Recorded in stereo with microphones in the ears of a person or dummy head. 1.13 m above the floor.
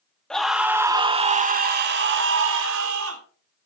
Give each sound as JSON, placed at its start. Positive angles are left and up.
{"t": 0.3, "sound": "a scream", "side_deg": 5, "distance_m": 1.2}